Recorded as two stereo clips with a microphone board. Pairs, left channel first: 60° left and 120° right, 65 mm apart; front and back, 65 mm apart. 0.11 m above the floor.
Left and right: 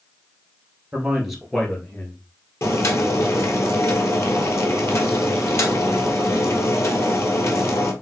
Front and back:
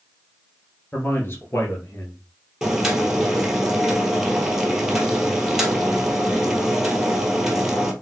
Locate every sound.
0.9 s a man speaking: 50° right, 2 m; by 2.2 s 30° left, 1.8 m
2.6 s boiling: 100° left, 1.5 m